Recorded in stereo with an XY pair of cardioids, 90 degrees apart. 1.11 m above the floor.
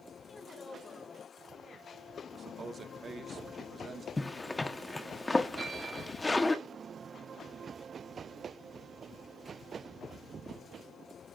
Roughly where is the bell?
Ahead right.